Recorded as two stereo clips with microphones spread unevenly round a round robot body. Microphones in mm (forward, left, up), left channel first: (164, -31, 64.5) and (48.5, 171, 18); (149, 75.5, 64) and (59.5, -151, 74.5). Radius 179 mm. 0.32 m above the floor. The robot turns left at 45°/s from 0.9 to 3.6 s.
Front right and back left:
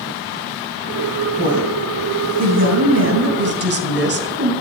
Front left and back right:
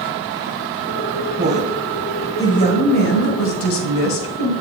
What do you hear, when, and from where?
1.4 s a woman speaking: 170° right, 3 m; by 4.5 s 90° left, 3 m